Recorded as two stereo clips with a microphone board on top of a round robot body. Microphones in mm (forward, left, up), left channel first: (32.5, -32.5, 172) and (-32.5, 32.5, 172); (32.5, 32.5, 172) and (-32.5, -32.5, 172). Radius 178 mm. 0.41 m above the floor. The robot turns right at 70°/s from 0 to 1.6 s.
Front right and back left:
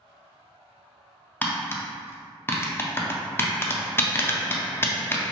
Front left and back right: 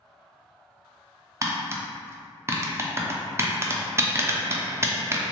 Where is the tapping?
105° right, 0.6 m; by 5.2 s 95° right, 0.6 m.